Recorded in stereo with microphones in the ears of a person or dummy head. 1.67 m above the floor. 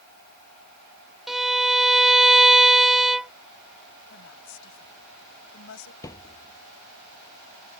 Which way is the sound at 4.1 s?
75° left (ahead or behind).